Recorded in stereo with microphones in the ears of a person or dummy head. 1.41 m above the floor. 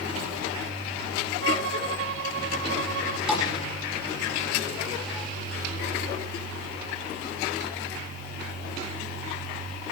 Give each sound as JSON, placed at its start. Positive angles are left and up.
{"t": 1.4, "sound": "a violin", "side_deg": -75, "distance_m": 1.3}
{"t": 3.3, "sound": "a thud", "side_deg": -5, "distance_m": 8.5}